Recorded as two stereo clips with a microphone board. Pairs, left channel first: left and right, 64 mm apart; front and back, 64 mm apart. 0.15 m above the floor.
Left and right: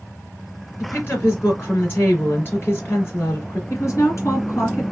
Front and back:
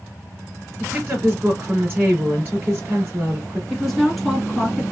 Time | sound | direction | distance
0.8 | a woman speaking | 135° left | 2 m
3.7 | a woman speaking | 90° left | 1.7 m